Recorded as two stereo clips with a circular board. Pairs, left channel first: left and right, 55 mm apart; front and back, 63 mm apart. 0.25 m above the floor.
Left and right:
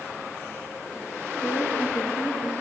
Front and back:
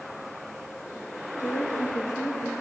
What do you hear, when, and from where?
1.4 s a woman speaking: 50° left, 3.5 m